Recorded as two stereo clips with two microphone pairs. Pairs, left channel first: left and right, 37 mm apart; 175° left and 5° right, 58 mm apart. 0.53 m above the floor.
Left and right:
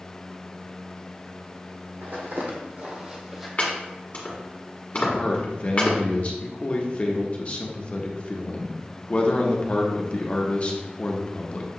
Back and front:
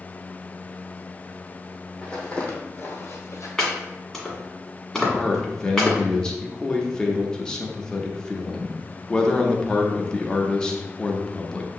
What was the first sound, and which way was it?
Footsteps, 110° right.